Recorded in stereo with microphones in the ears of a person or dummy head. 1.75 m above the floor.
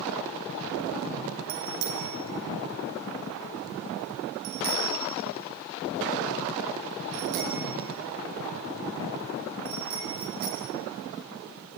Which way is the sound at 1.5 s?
60° right (ahead or behind).